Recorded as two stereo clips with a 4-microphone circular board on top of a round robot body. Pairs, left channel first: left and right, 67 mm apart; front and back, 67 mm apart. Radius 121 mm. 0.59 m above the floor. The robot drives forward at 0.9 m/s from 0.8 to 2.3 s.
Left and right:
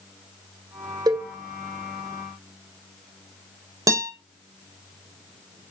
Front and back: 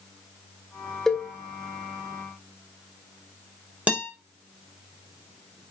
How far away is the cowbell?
About 2.5 m.